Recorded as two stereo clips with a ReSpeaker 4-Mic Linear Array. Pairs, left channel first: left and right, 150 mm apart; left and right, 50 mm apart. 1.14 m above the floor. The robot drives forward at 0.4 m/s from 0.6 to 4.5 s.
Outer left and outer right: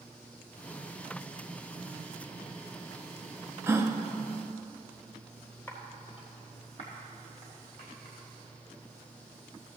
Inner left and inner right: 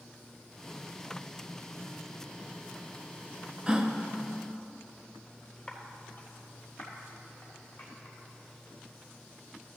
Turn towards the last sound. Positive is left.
turn(degrees=55)  # may be behind; listen again after turning